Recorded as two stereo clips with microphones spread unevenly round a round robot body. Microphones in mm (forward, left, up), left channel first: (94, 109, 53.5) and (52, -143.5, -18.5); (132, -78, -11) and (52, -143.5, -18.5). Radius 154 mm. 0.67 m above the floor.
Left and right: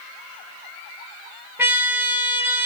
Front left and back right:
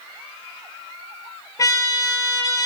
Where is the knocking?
No knocking in this recording.